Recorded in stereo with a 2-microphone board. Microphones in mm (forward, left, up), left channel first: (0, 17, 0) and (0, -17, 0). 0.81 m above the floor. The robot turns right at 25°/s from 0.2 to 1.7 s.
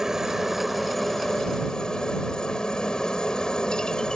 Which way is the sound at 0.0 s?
15° right.